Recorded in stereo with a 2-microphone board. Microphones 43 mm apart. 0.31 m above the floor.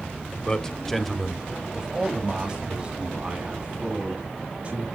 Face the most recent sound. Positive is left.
turn(degrees=-25)  # may be behind; listen again after turning